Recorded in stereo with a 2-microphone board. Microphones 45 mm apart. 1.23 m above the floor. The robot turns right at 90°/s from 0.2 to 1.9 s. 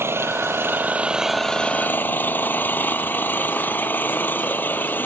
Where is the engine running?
105° right; by 5.1 s 50° left.